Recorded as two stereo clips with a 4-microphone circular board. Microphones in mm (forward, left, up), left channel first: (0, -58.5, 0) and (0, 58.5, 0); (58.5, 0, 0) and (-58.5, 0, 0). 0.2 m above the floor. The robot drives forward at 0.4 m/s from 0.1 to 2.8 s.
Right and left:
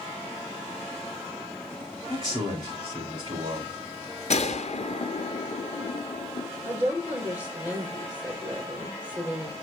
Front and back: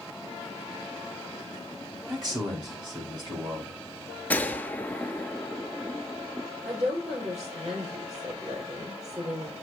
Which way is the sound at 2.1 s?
135° left.